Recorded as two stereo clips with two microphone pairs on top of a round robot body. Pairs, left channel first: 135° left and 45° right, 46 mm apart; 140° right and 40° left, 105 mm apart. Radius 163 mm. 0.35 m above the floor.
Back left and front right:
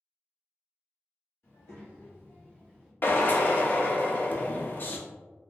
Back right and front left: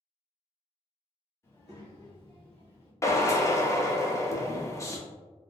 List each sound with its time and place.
1.4 s a child speaking: 155° left, 1.7 m; by 2.9 s 140° right, 1.1 m
3.0 s a drill: 165° left, 0.6 m